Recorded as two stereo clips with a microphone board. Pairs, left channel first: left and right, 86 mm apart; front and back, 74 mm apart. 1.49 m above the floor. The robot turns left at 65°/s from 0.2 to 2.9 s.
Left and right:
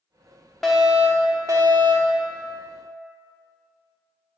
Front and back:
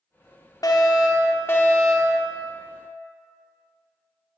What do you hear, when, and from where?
0.6 s a fire alarm: 5° left, 1.0 m; by 2.2 s 95° right, 1.0 m